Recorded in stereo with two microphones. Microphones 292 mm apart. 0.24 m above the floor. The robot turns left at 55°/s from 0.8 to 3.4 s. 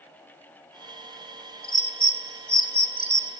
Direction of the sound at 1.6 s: 35° left (ahead or behind).